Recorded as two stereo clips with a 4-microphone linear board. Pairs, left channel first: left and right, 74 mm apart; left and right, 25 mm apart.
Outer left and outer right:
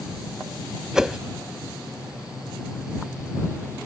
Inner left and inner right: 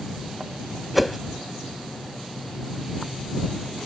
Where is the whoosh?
5° right (ahead or behind).